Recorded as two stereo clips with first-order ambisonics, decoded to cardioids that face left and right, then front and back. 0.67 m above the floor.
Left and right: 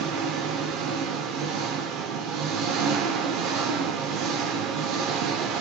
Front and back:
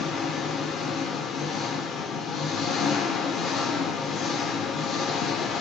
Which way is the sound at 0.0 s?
60° right.